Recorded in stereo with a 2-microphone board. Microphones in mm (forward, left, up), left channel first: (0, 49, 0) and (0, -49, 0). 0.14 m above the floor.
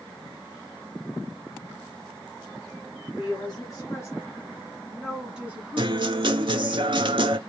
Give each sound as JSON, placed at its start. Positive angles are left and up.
{"t": 3.2, "sound": "a woman speaking", "side_deg": 40, "distance_m": 1.8}
{"t": 5.8, "sound": "a guitar", "side_deg": -55, "distance_m": 0.5}